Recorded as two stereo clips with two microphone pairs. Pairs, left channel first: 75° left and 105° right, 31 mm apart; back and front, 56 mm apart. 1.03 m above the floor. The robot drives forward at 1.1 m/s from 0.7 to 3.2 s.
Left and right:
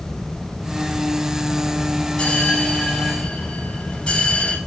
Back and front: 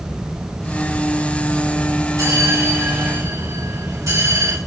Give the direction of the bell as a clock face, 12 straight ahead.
11 o'clock.